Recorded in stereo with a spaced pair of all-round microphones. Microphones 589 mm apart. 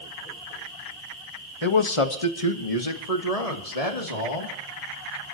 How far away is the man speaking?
About 1.4 m.